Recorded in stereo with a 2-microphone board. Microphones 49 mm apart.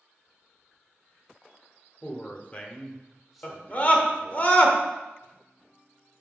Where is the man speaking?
35° left (ahead or behind), 1.1 m; by 4.4 s 30° right (ahead or behind), 1.2 m.